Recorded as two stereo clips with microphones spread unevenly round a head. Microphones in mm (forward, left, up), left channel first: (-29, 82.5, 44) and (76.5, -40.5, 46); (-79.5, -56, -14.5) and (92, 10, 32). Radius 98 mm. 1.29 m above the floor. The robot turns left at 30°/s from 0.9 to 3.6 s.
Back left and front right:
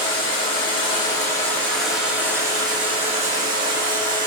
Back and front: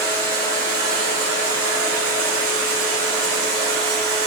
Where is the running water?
70° left, 1.7 m; by 4.3 s 10° right, 1.7 m.